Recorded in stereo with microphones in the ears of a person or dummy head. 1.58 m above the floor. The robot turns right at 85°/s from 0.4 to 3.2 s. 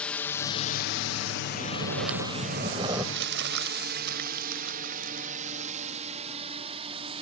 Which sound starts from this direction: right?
Crumpling, at 3.1 s.